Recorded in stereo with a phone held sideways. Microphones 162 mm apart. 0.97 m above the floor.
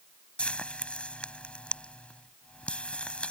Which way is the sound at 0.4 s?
5° left (ahead or behind).